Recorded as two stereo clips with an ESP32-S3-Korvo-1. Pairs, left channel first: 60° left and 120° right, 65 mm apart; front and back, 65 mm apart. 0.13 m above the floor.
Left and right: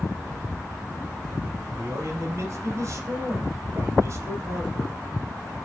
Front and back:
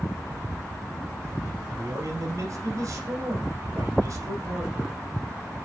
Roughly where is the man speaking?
Behind.